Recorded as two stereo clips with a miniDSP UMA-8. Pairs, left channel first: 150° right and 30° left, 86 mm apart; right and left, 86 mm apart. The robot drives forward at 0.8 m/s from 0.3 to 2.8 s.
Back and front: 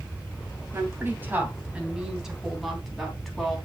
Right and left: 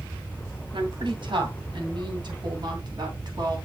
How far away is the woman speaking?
About 2.5 m.